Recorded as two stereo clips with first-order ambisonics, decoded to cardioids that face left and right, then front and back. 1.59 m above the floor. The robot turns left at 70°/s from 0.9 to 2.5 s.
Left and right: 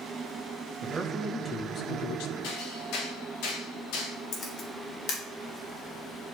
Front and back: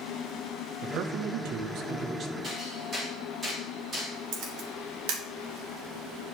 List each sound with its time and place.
0.8 s a man speaking: 150° right, 1.1 m; by 2.3 s 110° left, 1.1 m
2.4 s hammering: 115° left, 3.5 m; by 4.2 s 110° left, 3.5 m
4.3 s a camera shutter: 150° left, 1.9 m